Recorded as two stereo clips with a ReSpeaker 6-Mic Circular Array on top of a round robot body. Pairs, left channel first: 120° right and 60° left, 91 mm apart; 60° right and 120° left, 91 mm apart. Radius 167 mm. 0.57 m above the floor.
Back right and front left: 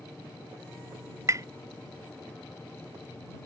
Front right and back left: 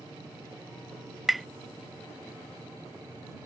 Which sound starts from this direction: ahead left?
Tapping, at 1.3 s.